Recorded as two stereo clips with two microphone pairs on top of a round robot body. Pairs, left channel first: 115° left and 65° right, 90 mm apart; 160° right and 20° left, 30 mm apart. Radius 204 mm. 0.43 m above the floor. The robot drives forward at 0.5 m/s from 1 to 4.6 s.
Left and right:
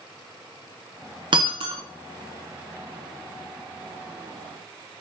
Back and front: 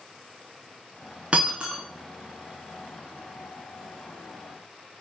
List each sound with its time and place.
1.3 s breaking glass: 35° right, 0.7 m; by 1.8 s 50° right, 0.6 m